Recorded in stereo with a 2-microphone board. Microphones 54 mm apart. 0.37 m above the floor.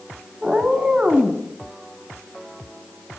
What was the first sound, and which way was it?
A cat meowing, 20° right (ahead or behind).